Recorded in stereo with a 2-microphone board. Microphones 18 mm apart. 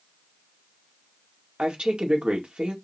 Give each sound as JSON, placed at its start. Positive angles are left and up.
{"t": 1.6, "sound": "a woman speaking", "side_deg": -75, "distance_m": 1.9}